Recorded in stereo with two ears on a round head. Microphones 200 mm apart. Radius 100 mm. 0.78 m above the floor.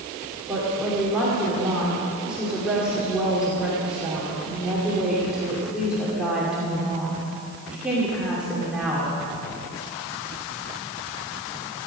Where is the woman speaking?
5° right (ahead or behind), 2.5 m.